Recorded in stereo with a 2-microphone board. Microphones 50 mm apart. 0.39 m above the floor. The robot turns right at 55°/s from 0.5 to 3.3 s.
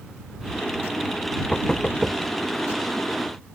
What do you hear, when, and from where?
1.5 s knocking: 20° left (ahead or behind); by 2.2 s 5° right (ahead or behind)